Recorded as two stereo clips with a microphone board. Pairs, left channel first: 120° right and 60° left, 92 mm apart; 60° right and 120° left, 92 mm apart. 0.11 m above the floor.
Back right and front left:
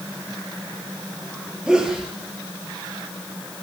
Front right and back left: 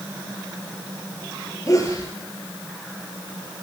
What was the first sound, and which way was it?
A sneeze, 20° right.